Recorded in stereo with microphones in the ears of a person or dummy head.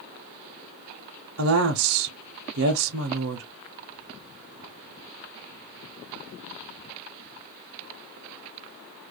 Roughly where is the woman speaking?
Right.